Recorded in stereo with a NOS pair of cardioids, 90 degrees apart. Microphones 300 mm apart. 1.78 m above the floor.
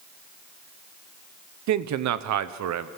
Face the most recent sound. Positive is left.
turn(degrees=-65)